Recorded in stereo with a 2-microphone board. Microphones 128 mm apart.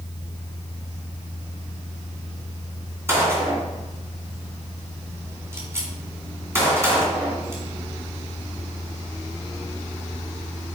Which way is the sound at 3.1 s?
20° right (ahead or behind).